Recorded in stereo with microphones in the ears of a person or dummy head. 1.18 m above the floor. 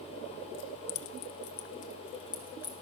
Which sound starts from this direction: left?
Keys jangling, at 0.5 s.